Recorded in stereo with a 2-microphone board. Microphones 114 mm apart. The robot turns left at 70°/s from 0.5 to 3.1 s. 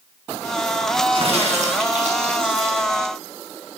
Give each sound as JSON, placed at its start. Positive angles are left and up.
{"t": 1.1, "sound": "a crack", "azimuth_deg": -45, "distance_m": 2.5}